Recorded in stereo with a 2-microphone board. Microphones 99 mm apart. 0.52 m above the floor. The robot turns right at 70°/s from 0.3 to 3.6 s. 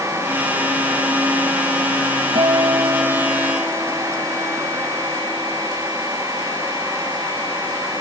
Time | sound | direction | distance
2.4 | a guitar | 75° right | ?